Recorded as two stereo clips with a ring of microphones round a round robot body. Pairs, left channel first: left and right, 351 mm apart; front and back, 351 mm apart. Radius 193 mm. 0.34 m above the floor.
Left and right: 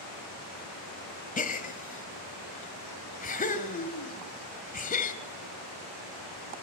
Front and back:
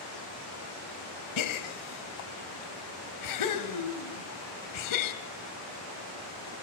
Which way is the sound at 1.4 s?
25° left.